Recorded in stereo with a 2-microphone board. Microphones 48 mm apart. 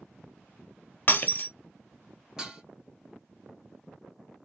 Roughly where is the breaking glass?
Left.